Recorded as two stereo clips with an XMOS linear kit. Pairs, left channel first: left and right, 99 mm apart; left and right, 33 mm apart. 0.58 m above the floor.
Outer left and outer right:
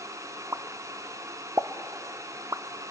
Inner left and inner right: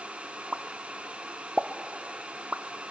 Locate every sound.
0.5 s a pop: 30° right (ahead or behind), 0.5 m